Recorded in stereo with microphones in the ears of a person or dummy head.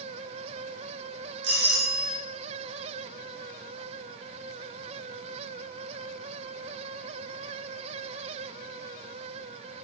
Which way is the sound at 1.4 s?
65° right (ahead or behind).